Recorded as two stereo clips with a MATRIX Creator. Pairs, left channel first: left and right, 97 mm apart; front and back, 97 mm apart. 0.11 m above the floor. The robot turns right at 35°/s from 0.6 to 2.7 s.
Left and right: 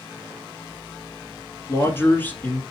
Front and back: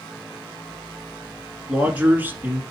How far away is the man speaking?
About 1.2 m.